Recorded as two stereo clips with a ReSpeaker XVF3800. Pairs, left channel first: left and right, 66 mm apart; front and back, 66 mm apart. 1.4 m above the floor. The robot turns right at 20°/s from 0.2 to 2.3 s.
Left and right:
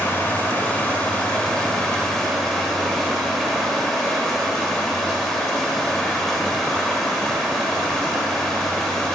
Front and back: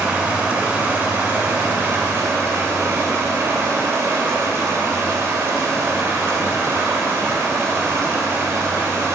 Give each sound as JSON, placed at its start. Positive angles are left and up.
{"t": 0.0, "sound": "running water", "azimuth_deg": 125, "distance_m": 1.4}